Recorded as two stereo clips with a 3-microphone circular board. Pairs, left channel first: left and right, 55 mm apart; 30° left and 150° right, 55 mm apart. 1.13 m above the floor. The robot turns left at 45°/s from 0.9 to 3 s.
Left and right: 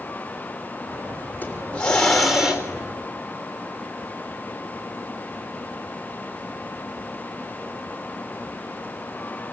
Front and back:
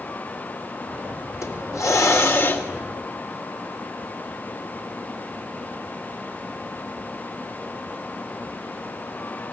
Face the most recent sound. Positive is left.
turn(degrees=-35)